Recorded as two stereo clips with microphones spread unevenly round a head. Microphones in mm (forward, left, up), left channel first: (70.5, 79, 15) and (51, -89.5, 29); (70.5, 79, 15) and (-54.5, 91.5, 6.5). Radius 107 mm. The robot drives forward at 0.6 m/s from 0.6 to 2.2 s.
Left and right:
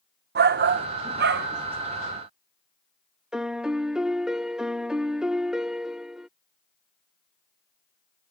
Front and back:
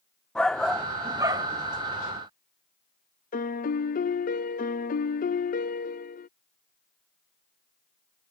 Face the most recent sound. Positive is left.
turn(degrees=-10)